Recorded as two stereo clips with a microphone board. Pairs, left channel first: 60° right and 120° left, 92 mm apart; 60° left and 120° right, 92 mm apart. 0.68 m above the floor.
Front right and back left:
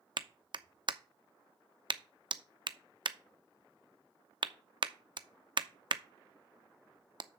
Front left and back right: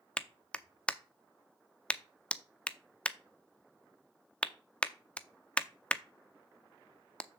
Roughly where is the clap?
Behind left.